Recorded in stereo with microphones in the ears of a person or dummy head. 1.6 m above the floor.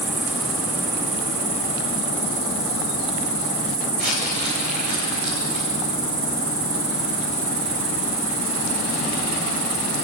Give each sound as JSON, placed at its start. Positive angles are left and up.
{"t": 0.0, "sound": "an insect", "side_deg": -75, "distance_m": 6.0}
{"t": 4.0, "sound": "crumpling", "side_deg": -55, "distance_m": 7.0}